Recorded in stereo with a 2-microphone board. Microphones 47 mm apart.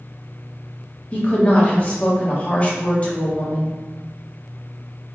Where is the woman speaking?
30° left (ahead or behind), 1.1 m.